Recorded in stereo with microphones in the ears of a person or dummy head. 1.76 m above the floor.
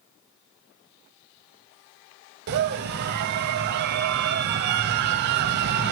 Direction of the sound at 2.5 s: 55° right (ahead or behind).